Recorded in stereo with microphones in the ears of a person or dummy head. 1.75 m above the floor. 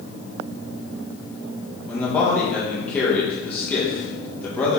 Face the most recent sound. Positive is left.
turn(degrees=10)  # may be behind; listen again after turning